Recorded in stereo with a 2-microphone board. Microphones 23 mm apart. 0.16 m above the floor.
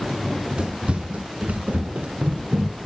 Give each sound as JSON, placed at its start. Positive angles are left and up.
{"t": 0.2, "sound": "running footsteps", "side_deg": -40, "distance_m": 2.0}